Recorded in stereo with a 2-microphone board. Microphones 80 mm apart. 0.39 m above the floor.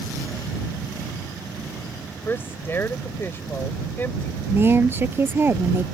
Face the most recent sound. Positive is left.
turn(degrees=-30)  # may be behind; listen again after turning